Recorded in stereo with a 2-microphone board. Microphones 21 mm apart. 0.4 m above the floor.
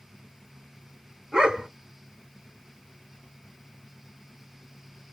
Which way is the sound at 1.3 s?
40° right (ahead or behind).